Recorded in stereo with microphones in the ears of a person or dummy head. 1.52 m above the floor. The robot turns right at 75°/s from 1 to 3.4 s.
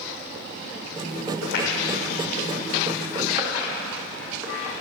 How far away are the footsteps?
About 5.5 m.